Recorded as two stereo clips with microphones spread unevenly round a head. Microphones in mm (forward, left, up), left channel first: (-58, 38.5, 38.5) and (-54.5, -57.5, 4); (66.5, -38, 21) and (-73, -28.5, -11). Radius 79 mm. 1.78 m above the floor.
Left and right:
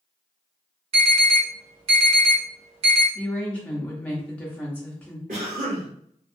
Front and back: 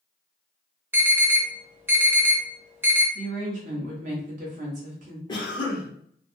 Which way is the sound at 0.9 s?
105° right.